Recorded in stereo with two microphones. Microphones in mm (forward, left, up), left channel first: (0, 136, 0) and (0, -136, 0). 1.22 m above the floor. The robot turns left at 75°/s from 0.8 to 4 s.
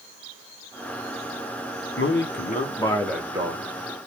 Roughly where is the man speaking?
Left.